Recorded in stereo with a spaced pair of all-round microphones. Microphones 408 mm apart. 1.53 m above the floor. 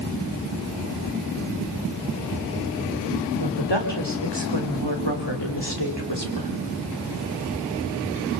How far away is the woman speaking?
About 5 m.